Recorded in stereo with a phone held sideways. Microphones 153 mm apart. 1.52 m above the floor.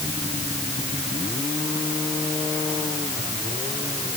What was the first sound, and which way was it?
Only background noise.